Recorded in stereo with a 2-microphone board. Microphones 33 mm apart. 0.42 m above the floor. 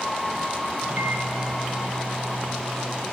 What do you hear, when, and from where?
0.8 s a microwave: 55° right (ahead or behind), 2 m